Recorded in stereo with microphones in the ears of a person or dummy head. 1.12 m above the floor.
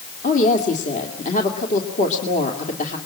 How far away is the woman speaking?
About 2.5 m.